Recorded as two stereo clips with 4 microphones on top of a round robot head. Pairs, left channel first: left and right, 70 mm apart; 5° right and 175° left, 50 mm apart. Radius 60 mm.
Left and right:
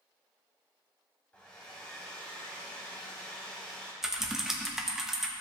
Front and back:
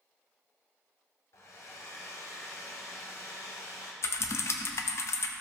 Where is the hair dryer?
15° left, 1.0 m.